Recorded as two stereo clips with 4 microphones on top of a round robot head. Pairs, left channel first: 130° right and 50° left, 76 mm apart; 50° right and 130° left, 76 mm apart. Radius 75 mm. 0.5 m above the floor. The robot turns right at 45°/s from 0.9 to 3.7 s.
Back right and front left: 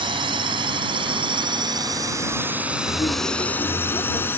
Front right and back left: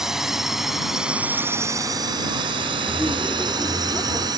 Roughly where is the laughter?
Behind right.